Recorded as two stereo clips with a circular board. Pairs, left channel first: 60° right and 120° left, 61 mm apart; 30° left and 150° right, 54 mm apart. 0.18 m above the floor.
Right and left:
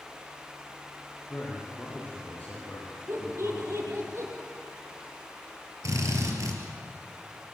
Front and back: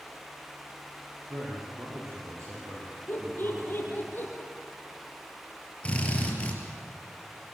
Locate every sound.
1.3 s a man speaking: 130° right, 6.5 m; by 4.1 s 120° right, 8 m
3.1 s laughter: 80° left, 6 m
5.8 s a drill: 95° left, 4.5 m